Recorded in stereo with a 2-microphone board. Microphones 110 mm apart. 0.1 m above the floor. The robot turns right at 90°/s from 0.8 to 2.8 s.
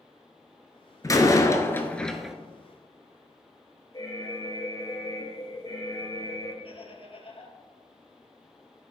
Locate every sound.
1.0 s a door slam: 30° left (ahead or behind), 0.9 m; by 2.4 s 5° right (ahead or behind), 0.9 m
3.9 s an alarm: 35° left (ahead or behind), 2.5 m
6.6 s laughter: 55° left (ahead or behind), 3 m